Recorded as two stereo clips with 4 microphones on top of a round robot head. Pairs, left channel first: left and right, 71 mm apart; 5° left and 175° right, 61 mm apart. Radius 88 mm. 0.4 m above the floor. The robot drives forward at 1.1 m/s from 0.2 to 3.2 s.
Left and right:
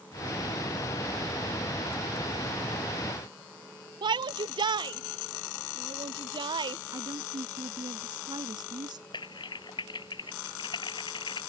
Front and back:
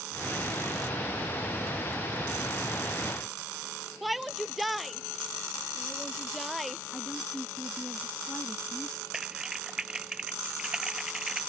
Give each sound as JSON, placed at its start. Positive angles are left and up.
{"t": 4.0, "sound": "a shout", "azimuth_deg": -90}
{"t": 6.9, "sound": "a woman speaking", "azimuth_deg": -75}
{"t": 9.1, "sound": "typing on a keyboard", "azimuth_deg": 105}